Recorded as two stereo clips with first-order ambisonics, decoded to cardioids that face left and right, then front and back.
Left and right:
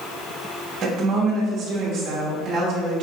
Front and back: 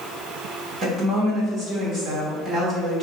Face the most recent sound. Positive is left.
turn(degrees=-125)